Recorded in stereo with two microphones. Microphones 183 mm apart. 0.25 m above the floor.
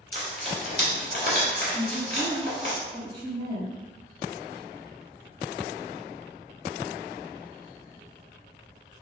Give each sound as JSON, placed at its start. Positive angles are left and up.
{"t": 0.1, "sound": "frying", "side_deg": 55, "distance_m": 1.8}
{"t": 1.7, "sound": "a woman speaking", "side_deg": 35, "distance_m": 1.8}